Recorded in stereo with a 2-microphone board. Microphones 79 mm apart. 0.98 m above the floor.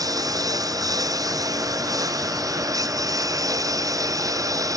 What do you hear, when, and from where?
0.0 s a lawn mower: 50° right (ahead or behind); by 4.8 s 45° right (ahead or behind)